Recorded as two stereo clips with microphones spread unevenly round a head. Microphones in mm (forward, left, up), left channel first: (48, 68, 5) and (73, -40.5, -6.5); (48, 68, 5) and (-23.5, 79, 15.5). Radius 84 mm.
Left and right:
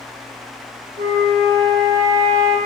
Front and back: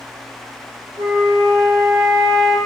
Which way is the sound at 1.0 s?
130° right.